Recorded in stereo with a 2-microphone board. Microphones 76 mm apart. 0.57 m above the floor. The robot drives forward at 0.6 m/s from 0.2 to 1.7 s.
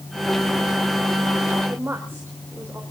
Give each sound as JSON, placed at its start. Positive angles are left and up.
{"t": 1.7, "sound": "a woman speaking", "side_deg": -30, "distance_m": 2.5}